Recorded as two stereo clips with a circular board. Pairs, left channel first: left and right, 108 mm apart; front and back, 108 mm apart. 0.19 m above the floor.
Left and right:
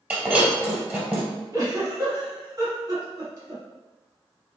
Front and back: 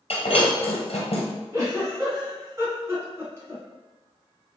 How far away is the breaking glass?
About 1.6 m.